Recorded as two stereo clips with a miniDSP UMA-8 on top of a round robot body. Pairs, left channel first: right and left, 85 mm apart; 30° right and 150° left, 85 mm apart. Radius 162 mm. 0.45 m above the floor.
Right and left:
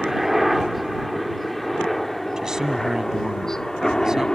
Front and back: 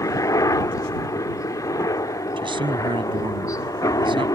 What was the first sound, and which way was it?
A helicopter, 5° left.